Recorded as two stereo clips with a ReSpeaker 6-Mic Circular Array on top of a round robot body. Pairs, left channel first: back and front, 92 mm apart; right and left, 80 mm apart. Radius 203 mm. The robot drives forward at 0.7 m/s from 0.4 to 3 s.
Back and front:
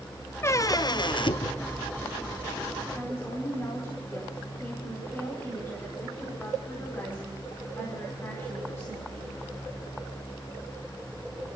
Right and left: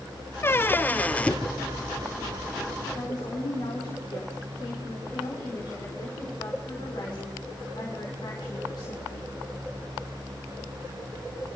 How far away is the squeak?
About 0.7 m.